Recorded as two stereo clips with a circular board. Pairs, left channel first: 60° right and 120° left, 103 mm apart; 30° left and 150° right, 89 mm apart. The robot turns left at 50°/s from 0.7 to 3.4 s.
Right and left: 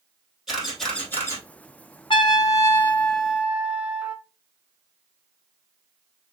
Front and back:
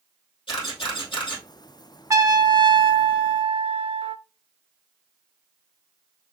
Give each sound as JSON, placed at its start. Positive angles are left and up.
{"t": 0.5, "sound": "a camera shutter", "azimuth_deg": 35, "distance_m": 2.5}
{"t": 2.1, "sound": "a trumpet", "azimuth_deg": -95, "distance_m": 0.5}